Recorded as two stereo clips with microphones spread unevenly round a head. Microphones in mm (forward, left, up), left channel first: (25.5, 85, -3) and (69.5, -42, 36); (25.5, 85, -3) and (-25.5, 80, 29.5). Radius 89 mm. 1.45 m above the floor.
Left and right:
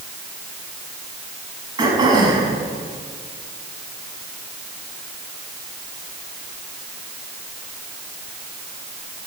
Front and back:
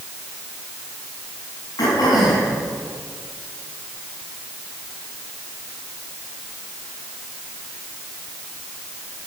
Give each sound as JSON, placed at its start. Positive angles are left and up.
{"t": 1.8, "sound": "throat clearing", "azimuth_deg": -20, "distance_m": 6.0}